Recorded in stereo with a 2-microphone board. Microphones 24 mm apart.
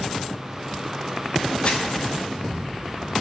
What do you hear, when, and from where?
1.6 s crumpling: 50° left (ahead or behind), 2.5 m